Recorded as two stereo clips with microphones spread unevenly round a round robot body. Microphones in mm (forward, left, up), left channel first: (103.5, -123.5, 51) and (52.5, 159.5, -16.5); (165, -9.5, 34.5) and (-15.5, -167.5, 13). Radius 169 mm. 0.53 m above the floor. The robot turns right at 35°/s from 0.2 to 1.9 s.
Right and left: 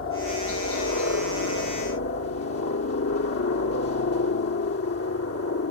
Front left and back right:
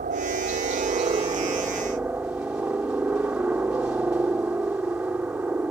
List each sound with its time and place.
0.0 s a helicopter: 120° right; by 5.7 s 60° right